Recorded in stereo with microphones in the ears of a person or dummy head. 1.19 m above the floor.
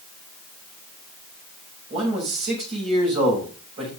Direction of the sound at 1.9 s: 35° right (ahead or behind).